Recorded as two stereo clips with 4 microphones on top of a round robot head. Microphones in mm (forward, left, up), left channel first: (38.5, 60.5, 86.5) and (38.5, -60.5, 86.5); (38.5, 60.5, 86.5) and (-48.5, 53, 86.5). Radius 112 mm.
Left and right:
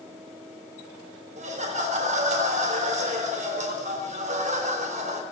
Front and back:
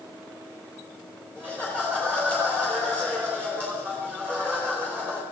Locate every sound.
1.4 s laughter: 105° right, 3 m